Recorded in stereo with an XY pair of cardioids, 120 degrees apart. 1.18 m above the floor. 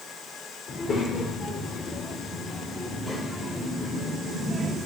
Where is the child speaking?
45° left, 2 m; by 4.8 s 5° left, 3 m.